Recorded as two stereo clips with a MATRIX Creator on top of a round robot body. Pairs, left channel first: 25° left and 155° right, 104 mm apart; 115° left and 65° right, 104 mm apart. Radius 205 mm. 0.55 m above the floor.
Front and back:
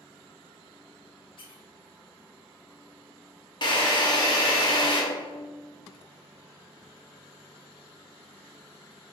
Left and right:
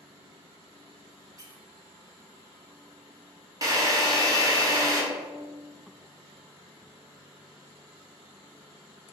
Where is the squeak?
10° right, 0.7 m.